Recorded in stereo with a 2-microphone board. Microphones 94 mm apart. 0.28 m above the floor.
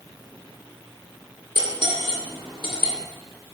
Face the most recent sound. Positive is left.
turn(degrees=-60)  # may be behind; listen again after turning